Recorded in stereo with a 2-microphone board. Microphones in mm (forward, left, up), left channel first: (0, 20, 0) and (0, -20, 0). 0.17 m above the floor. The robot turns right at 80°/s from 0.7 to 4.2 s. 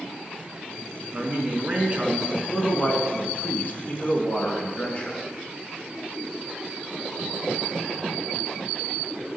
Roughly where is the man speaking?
Right.